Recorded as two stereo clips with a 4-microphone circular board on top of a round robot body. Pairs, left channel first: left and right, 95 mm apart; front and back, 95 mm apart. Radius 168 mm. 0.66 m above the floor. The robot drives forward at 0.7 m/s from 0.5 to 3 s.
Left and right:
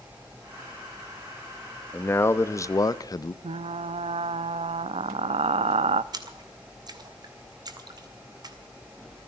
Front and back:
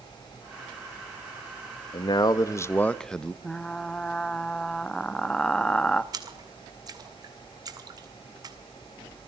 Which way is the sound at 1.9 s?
25° left.